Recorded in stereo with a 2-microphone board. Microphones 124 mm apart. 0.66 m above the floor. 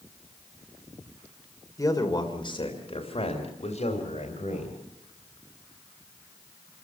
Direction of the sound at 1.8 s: 25° left (ahead or behind).